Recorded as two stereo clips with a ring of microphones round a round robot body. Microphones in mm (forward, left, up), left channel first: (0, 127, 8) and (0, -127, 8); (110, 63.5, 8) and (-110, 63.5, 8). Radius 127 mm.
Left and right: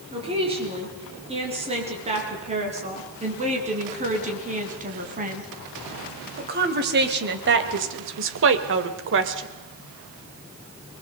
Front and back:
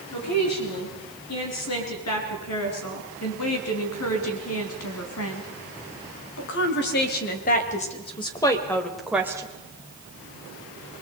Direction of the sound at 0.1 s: 20° right.